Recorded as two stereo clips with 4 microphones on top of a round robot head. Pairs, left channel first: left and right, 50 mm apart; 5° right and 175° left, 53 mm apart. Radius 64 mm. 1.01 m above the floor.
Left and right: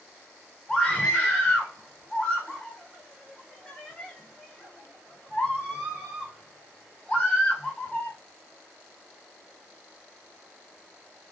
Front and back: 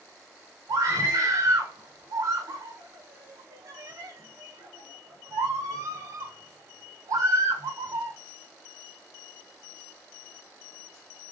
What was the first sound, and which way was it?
A scream, 175° left.